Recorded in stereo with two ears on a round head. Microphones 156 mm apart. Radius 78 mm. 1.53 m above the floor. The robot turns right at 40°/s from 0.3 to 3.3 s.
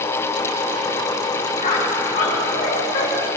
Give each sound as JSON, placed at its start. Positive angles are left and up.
{"t": 1.6, "sound": "a squeak", "side_deg": 40, "distance_m": 2.0}